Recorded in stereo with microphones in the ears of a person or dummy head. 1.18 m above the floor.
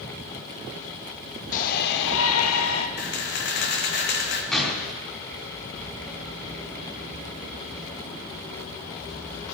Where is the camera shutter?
55° left (ahead or behind), 1.5 m.